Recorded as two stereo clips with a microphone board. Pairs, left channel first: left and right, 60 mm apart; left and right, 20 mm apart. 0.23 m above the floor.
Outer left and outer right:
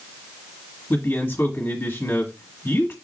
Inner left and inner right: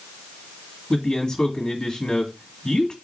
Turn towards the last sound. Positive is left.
turn(degrees=40)  # may be behind; listen again after turning